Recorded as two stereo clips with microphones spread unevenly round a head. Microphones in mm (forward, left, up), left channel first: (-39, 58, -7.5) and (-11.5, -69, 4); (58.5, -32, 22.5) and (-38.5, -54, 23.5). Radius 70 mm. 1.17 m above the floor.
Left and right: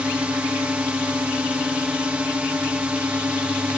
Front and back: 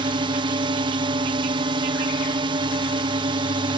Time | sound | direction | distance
0.0 | a drone | 155° right | ?